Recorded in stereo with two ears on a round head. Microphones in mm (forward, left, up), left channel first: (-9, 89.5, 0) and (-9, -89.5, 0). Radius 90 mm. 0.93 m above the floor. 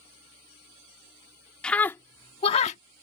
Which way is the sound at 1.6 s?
5° left (ahead or behind).